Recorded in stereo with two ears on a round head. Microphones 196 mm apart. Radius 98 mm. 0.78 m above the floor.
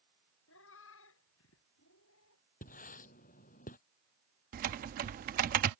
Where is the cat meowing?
60° left (ahead or behind); by 2.4 s 65° left (ahead or behind).